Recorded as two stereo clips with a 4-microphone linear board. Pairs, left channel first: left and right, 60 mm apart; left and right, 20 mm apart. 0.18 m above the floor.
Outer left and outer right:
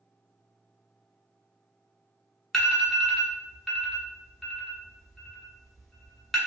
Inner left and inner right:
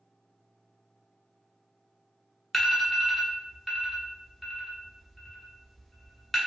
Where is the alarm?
5° left (ahead or behind), 1.4 m.